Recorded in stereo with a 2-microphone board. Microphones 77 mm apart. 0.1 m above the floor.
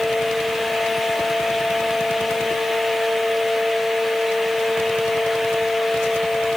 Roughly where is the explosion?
No explosion in this recording.